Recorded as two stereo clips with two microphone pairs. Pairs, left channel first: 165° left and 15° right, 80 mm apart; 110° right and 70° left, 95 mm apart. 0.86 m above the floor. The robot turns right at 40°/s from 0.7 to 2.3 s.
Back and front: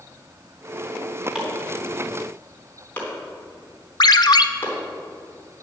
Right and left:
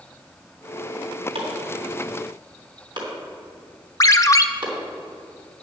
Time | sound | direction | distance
1.4 | chopping | 65° left | 3.5 m
4.0 | a ringtone | 165° right | 0.5 m